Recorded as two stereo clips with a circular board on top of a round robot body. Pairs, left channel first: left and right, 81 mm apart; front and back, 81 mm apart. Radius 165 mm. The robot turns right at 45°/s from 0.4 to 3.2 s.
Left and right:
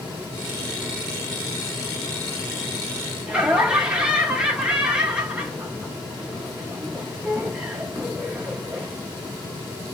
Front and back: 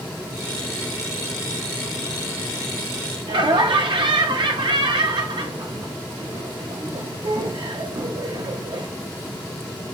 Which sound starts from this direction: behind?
Laughter, at 3.3 s.